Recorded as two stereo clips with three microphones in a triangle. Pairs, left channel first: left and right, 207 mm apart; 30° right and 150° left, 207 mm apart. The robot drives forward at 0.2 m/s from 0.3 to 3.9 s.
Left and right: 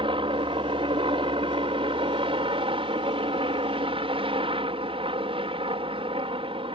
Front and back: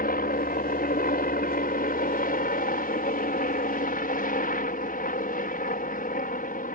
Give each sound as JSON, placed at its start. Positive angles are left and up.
{"t": 0.0, "sound": "a helicopter", "azimuth_deg": -35}